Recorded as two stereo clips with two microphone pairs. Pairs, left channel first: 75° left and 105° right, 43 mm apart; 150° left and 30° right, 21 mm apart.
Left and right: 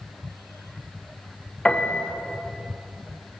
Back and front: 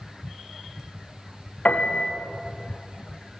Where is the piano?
145° left, 6 m.